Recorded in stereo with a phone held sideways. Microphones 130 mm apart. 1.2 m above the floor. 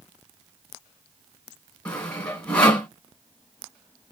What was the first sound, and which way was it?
Sawing, 10° left (ahead or behind).